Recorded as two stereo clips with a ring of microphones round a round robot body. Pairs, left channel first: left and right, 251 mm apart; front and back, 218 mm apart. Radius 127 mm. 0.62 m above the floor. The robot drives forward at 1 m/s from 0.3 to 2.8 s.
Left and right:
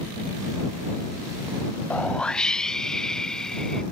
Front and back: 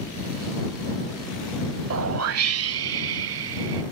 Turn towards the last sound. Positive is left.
turn(degrees=180)